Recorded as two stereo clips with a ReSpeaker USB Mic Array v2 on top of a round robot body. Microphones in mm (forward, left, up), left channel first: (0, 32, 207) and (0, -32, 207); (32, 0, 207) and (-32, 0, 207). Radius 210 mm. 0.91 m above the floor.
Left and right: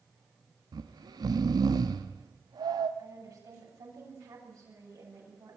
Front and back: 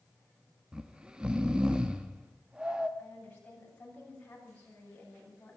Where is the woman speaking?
70° right, 8.5 m.